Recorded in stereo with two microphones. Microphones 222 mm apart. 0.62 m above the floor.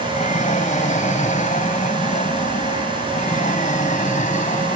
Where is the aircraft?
35° left (ahead or behind).